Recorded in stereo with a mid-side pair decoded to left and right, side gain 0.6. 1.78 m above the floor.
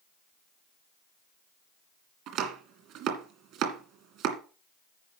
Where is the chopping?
65° right, 2 m.